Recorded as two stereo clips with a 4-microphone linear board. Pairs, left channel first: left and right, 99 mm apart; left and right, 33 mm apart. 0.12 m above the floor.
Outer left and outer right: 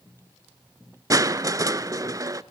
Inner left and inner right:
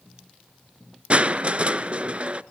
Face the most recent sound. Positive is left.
turn(degrees=-35)  # may be behind; listen again after turning